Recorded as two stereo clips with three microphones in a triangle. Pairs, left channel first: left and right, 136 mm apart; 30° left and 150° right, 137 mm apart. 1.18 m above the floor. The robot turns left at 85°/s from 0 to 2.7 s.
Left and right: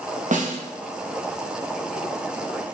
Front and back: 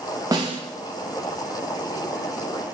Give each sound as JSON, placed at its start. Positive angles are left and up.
{"t": 0.3, "sound": "a snare drum", "azimuth_deg": -85, "distance_m": 1.0}